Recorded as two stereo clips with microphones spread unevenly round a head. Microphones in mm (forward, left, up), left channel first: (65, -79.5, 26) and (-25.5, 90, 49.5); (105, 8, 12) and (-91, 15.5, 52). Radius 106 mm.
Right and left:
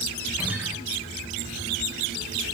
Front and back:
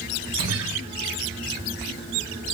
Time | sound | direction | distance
0.4 | a guitar | 160° right | 1.2 m